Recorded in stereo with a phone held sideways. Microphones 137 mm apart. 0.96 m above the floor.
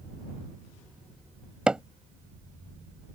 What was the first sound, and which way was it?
Hammering, 5° right (ahead or behind).